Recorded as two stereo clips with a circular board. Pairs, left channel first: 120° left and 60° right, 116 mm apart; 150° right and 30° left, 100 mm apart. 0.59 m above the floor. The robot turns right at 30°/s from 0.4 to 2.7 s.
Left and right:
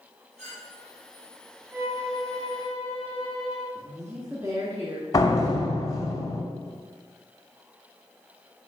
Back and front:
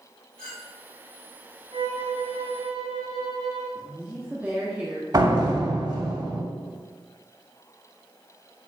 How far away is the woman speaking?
About 1.2 m.